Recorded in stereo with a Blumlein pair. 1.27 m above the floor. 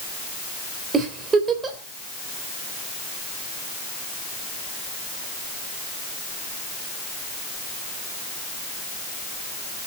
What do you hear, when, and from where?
0.9 s a giggle: 20° right, 3.5 m